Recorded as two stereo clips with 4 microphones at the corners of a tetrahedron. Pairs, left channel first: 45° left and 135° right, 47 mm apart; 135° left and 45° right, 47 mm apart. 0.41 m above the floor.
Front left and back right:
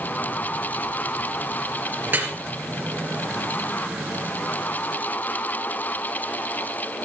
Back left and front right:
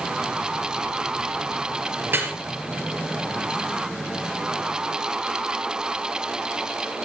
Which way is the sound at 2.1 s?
90° right.